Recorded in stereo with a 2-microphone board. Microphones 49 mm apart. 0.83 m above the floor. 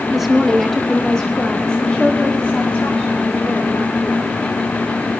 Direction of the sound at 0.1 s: 10° right (ahead or behind).